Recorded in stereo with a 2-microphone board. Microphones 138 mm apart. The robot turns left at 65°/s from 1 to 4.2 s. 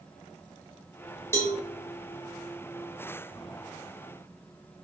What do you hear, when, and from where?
1.3 s a cowbell: 20° left (ahead or behind), 1.5 m; by 1.6 s 35° left (ahead or behind), 1.5 m